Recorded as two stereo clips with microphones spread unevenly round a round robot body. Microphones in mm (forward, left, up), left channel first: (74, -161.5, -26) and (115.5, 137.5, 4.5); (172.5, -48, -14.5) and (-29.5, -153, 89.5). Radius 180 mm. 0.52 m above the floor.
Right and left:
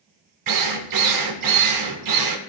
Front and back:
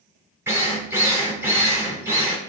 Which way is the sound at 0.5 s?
115° left.